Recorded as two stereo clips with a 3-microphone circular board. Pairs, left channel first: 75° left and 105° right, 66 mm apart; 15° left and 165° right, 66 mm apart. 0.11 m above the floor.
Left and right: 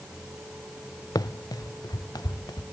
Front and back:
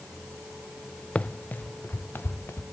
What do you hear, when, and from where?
1.1 s running footsteps: 85° left, 0.7 m; by 2.6 s 70° left, 1.8 m